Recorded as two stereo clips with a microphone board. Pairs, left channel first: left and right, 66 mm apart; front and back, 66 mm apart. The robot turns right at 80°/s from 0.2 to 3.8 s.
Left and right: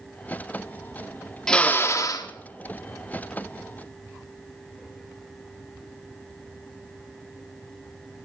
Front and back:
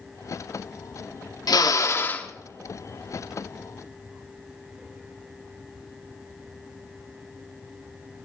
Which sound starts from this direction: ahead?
A drill, at 1.5 s.